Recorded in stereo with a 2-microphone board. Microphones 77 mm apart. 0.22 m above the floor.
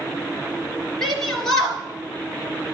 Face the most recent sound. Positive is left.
turn(degrees=10)  # may be behind; listen again after turning